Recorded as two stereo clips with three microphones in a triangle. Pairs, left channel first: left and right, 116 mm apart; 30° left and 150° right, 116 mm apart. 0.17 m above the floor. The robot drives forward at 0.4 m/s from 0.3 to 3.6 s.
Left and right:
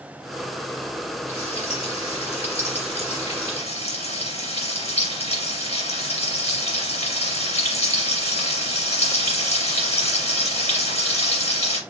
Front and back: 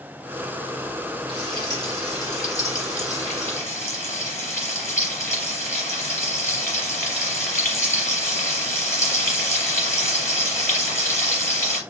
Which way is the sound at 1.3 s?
80° left.